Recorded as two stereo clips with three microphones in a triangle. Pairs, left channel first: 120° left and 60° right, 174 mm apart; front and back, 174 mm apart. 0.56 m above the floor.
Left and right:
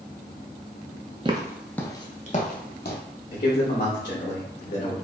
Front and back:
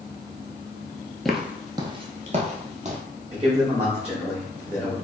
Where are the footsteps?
90° right, 0.6 m; by 3.0 s 135° left, 1.1 m.